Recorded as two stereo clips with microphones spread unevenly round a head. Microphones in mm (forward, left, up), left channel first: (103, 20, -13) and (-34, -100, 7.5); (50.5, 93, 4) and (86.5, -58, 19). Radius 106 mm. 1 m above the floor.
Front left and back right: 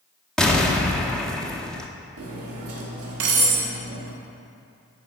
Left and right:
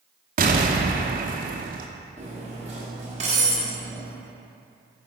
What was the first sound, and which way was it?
An explosion, 50° right.